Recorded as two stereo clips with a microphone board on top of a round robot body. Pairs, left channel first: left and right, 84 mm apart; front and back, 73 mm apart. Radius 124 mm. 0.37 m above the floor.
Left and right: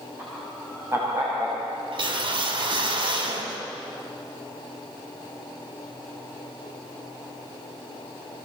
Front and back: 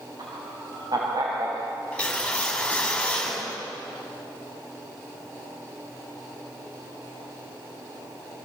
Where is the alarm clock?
No alarm clock in this recording.